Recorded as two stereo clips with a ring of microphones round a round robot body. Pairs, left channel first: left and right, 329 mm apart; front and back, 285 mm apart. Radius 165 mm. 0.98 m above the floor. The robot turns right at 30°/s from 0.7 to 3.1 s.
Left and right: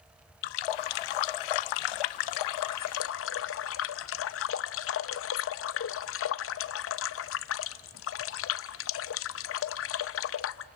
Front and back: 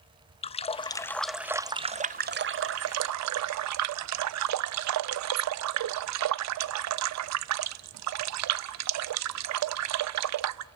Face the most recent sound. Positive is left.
turn(degrees=145)